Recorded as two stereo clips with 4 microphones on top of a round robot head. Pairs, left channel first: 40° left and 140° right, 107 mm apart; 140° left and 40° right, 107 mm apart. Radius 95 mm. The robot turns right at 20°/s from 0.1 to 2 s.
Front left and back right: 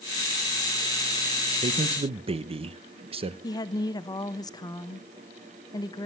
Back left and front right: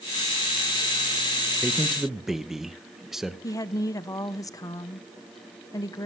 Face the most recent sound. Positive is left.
turn(degrees=85)